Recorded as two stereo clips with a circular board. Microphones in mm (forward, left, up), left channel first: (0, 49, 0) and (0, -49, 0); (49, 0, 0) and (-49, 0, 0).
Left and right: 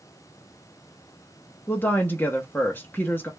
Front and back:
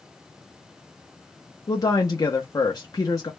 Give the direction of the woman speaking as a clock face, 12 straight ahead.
11 o'clock.